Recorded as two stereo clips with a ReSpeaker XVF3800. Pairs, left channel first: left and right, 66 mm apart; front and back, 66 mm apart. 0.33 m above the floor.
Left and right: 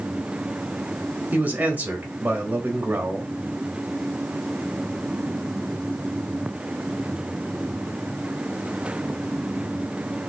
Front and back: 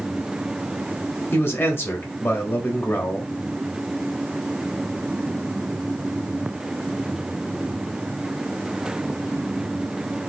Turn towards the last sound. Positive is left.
turn(degrees=-35)